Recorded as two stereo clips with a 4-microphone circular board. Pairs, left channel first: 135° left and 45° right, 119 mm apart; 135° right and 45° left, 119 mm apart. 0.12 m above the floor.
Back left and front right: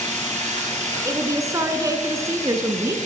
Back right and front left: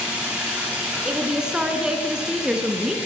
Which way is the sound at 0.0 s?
35° right.